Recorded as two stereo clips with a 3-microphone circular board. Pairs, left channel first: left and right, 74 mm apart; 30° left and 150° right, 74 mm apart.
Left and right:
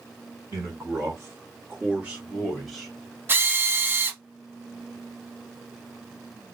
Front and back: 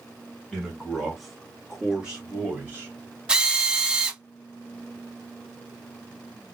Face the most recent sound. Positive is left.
turn(degrees=-85)